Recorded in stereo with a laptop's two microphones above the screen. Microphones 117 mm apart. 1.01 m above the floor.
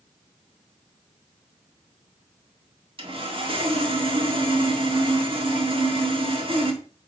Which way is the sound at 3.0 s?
50° right (ahead or behind).